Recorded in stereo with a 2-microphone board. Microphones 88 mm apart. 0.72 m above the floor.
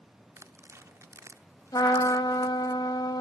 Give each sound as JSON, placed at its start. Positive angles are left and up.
{"t": 0.4, "sound": "tearing paper", "side_deg": -35, "distance_m": 0.6}
{"t": 1.7, "sound": "a trumpet", "side_deg": 55, "distance_m": 0.8}